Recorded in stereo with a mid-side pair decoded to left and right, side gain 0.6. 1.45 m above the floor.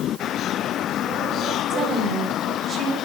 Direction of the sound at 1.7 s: 30° right.